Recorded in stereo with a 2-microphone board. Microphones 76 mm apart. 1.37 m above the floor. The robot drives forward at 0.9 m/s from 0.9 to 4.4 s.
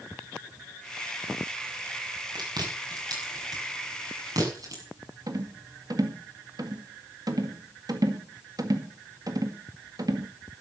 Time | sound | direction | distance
2.4 | chewing | 65° right (ahead or behind) | 6 m
5.3 | a rattle | 55° right (ahead or behind) | 1.8 m